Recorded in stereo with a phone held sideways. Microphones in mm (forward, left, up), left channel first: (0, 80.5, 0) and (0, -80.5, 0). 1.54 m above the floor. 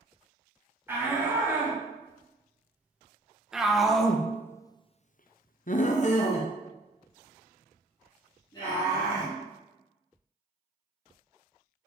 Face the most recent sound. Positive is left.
turn(degrees=25)  # may be behind; listen again after turning